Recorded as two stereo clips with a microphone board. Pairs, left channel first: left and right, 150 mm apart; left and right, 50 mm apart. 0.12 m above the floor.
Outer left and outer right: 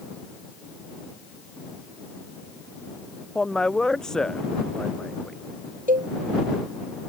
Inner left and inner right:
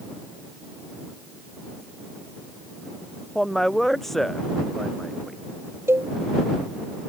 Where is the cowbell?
65° right (ahead or behind).